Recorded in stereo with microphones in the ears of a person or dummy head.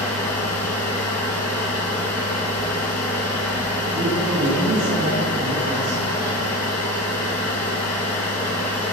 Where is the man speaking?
45° right (ahead or behind), 2 m.